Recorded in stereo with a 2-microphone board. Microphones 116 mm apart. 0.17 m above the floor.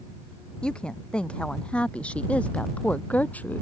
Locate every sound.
0.6 s a woman speaking: 10° left (ahead or behind); by 3.6 s 15° left (ahead or behind)